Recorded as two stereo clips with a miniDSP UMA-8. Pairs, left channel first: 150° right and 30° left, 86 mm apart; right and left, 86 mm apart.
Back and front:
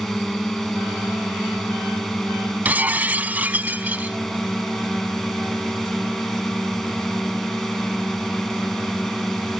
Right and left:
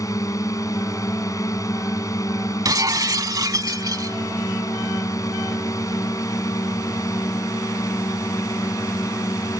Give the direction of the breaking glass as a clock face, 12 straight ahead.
9 o'clock.